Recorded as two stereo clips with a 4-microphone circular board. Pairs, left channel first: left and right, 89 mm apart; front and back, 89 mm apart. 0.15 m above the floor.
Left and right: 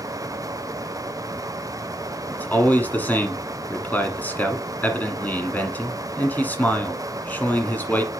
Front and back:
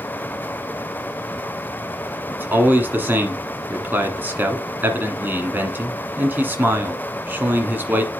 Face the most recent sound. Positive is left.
turn(degrees=140)